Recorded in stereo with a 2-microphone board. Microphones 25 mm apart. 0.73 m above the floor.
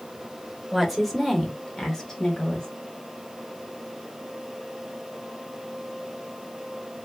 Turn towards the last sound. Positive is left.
turn(degrees=20)  # may be behind; listen again after turning